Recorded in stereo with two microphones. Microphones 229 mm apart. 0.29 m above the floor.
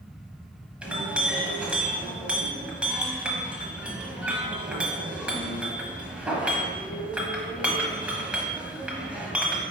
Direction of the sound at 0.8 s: 5° right (ahead or behind).